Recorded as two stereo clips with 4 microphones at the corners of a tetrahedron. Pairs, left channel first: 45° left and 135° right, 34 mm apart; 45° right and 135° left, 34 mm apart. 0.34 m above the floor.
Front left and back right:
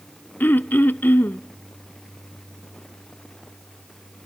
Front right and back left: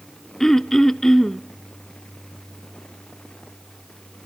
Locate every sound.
0.4 s throat clearing: 30° left, 0.7 m